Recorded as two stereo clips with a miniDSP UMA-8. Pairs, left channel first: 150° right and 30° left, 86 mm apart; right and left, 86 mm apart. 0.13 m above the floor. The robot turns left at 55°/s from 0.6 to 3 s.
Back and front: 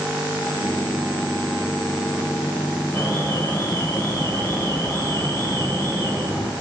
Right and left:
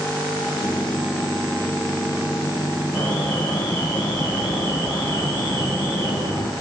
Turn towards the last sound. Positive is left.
turn(degrees=-110)